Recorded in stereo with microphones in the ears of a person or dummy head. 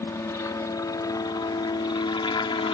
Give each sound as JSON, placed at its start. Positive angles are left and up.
{"t": 0.0, "sound": "a helicopter", "side_deg": 15}